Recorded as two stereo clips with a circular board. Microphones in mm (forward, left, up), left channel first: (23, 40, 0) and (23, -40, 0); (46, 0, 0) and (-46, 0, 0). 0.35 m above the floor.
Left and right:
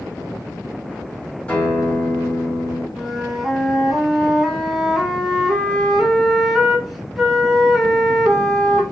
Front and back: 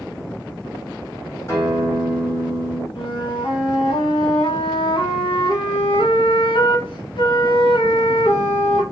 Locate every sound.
1.5 s a guitar: 25° left, 1.8 m
3.0 s a flute: straight ahead, 0.7 m